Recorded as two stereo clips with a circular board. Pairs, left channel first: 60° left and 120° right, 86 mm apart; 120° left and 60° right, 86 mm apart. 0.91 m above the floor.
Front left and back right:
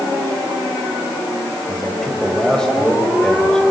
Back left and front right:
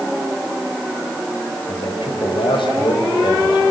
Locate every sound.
1.7 s a man speaking: 145° left, 4 m; by 3.7 s 140° left, 3 m